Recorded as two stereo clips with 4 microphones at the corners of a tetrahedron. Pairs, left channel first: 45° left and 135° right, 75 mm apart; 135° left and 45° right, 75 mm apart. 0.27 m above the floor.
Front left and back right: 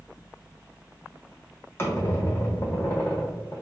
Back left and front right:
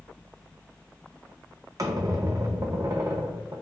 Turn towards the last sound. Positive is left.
turn(degrees=-5)